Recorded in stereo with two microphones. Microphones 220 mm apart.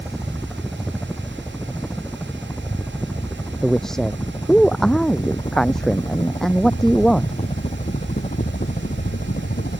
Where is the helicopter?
Centre (ahead or behind); by 9.8 s 40° left (ahead or behind).